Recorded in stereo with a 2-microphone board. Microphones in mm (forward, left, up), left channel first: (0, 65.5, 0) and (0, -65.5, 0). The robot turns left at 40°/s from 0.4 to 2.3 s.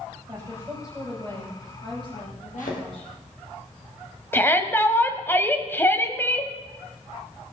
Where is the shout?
15° left (ahead or behind), 1.3 m.